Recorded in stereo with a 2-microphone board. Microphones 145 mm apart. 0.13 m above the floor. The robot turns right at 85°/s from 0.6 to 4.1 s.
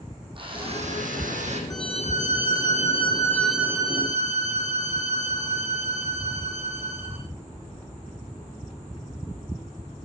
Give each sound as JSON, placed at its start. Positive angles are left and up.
{"t": 0.3, "sound": "a drill", "azimuth_deg": -140, "distance_m": 6.5}
{"t": 1.7, "sound": "a violin", "azimuth_deg": 25, "distance_m": 3.5}